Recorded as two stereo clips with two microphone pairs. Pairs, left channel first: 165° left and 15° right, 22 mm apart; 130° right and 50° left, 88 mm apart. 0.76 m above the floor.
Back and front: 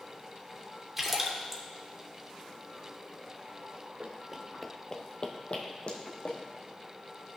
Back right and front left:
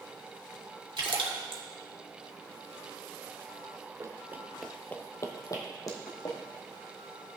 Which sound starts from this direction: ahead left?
A splash, at 1.0 s.